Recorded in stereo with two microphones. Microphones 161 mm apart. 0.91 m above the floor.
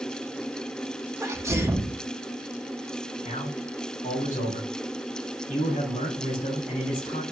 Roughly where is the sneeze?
Centre.